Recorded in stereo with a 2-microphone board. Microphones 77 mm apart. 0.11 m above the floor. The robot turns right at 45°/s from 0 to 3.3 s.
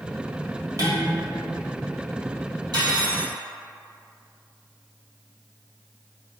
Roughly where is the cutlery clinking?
Right.